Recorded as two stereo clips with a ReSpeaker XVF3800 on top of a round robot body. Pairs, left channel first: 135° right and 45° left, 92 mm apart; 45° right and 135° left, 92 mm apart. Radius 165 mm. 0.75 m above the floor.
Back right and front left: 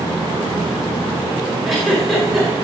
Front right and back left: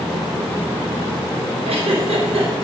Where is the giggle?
135° left, 4.5 m.